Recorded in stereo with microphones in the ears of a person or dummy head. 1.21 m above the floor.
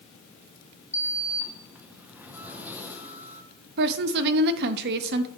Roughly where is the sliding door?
Centre.